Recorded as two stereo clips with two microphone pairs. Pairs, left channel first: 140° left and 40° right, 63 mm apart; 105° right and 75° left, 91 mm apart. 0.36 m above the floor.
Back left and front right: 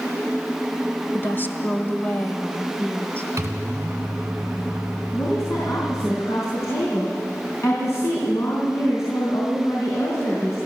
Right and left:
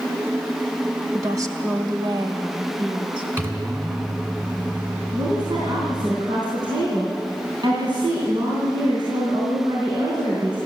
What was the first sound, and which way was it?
A woman speaking, 110° left.